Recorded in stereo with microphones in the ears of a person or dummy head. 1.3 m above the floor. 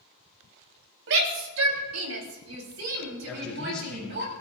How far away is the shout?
About 3.5 m.